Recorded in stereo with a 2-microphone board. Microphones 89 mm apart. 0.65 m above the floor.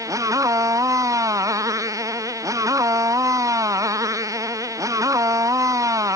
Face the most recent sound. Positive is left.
turn(degrees=-40)  # may be behind; listen again after turning